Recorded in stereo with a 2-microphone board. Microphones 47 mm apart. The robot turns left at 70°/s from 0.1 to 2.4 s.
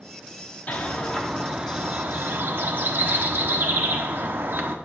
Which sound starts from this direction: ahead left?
A bird, at 0.7 s.